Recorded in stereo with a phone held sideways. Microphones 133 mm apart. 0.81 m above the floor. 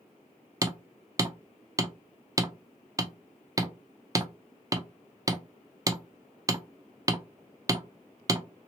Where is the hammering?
25° right (ahead or behind), 0.5 m.